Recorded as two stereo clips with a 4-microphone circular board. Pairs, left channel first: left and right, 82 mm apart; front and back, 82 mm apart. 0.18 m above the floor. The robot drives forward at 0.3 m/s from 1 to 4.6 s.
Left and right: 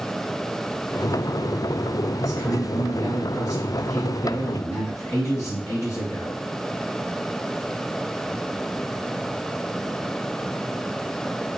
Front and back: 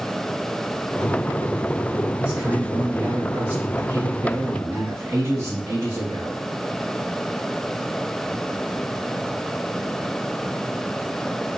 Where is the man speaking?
100° left, 1.6 m; by 6.4 s 130° left, 1.8 m.